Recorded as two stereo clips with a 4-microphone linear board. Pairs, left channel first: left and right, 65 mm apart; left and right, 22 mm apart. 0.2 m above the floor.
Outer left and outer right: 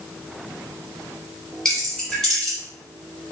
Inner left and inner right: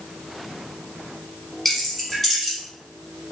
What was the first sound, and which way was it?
Keys jangling, 10° left (ahead or behind).